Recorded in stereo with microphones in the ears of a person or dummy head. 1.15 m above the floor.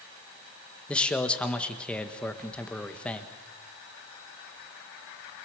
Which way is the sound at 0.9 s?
5° left (ahead or behind).